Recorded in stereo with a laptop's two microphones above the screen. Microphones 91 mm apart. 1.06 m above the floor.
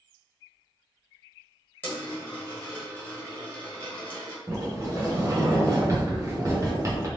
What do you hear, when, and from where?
1.8 s a dropped coin: 20° left (ahead or behind), 1.6 m
4.5 s a sliding door: 35° right (ahead or behind), 1.0 m